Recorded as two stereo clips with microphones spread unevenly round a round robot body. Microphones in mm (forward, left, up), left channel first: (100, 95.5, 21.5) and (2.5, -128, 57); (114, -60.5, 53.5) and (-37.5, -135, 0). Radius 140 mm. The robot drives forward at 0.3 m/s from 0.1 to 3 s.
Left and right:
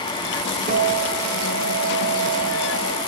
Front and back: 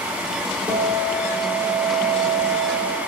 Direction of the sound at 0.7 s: 135° right.